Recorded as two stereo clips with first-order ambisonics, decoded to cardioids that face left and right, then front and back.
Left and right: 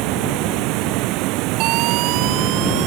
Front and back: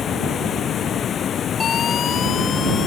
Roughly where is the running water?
Ahead right.